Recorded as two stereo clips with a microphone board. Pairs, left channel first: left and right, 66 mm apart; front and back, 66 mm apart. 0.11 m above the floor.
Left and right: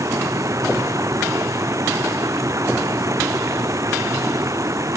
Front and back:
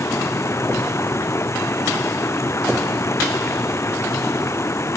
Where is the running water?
50° right.